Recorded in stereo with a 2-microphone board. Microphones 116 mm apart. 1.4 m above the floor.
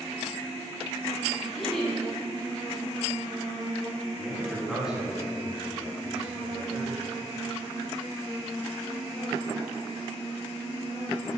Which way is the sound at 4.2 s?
5° right (ahead or behind).